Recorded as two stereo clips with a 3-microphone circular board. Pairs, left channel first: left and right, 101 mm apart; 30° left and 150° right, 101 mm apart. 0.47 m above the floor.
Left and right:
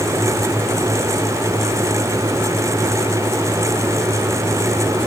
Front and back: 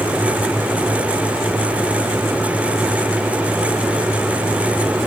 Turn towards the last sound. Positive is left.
No sound to turn to.